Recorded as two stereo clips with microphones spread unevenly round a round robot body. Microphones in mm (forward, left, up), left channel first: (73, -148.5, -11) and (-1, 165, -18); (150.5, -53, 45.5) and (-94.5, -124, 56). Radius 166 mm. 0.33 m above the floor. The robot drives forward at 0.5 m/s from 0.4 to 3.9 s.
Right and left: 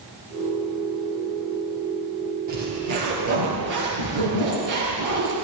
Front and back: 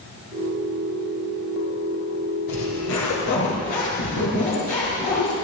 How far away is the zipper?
About 4.5 m.